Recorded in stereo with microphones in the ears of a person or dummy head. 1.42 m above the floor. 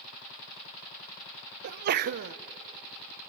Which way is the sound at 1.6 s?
50° right (ahead or behind).